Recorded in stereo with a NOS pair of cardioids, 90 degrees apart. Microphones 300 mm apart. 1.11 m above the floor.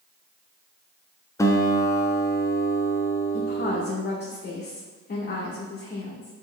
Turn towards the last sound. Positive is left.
turn(degrees=35)